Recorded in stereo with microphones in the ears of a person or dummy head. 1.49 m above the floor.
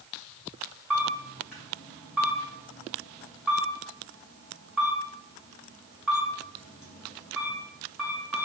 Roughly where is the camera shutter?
Centre.